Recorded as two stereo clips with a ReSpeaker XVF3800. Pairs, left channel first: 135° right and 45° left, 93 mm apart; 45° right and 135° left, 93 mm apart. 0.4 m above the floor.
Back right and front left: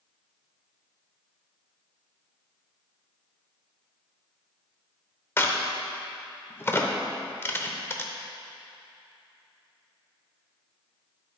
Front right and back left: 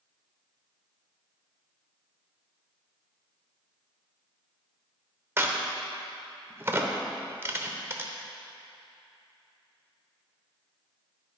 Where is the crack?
Straight behind, 0.7 m.